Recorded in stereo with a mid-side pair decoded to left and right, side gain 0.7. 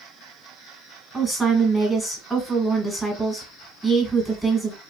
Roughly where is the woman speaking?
Ahead.